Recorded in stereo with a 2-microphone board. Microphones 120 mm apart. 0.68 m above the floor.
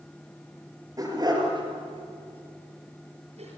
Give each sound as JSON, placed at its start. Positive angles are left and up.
{"t": 1.0, "sound": "a dog barking", "side_deg": -30, "distance_m": 5.5}